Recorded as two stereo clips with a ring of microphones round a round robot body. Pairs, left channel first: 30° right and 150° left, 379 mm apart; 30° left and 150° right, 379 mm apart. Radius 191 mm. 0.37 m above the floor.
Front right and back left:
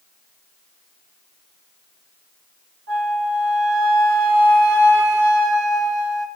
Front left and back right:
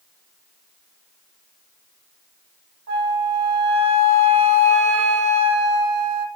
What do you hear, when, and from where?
2.9 s a flute: 150° right, 1.3 m